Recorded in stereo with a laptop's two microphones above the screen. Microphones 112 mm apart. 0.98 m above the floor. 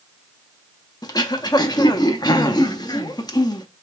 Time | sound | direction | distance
1.0 | throat clearing | 40° left (ahead or behind) | 0.6 m